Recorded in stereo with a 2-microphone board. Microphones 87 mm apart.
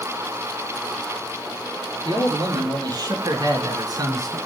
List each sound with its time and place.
2.0 s a man speaking: 55° right (ahead or behind), 4 m; by 4.4 s 45° right (ahead or behind), 2.5 m